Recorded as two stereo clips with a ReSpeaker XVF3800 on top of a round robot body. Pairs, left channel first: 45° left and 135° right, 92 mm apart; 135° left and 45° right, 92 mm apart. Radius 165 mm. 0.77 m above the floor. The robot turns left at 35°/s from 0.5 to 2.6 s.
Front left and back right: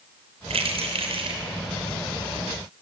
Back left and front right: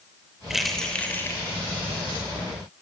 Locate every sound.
0.5 s keys jangling: 130° right, 3 m; by 1.4 s 160° right, 3 m